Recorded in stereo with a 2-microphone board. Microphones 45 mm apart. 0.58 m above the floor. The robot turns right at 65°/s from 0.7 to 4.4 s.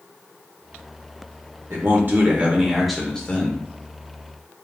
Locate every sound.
1.7 s a man speaking: 80° right, 1.4 m; by 3.6 s 45° left, 1.4 m